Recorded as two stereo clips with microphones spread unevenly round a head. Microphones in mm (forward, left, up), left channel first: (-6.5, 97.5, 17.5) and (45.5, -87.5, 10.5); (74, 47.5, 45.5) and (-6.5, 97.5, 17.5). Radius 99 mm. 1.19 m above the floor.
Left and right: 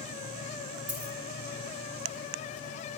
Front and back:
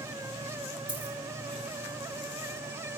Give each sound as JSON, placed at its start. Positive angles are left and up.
{"t": 0.9, "sound": "a dropped coin", "azimuth_deg": -85, "distance_m": 3.0}